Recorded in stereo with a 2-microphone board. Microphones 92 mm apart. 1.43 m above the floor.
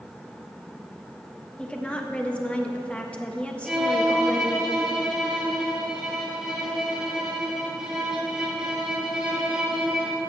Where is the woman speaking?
15° left (ahead or behind), 1.3 m.